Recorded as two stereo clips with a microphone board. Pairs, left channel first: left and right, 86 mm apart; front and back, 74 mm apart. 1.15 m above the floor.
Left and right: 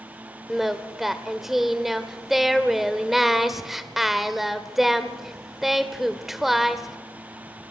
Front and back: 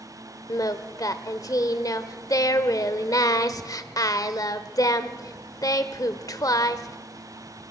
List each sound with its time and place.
0.5 s singing: 5° right, 1.2 m